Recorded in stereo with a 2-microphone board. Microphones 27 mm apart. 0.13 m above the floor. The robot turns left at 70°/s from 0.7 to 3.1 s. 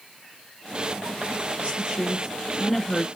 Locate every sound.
1.6 s a woman speaking: 110° right, 1.5 m; by 3.1 s 150° left, 1.5 m